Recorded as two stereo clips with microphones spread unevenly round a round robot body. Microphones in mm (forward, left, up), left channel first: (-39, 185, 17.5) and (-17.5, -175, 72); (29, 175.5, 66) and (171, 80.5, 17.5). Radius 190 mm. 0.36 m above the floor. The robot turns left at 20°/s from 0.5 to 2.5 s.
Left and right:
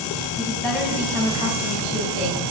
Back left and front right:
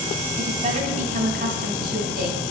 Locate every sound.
0.4 s a woman speaking: 10° left, 3.5 m; by 2.4 s 25° right, 3.5 m